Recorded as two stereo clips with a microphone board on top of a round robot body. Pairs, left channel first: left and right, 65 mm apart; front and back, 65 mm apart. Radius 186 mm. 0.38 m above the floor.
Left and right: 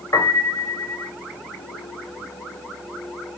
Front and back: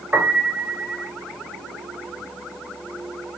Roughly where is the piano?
Behind left.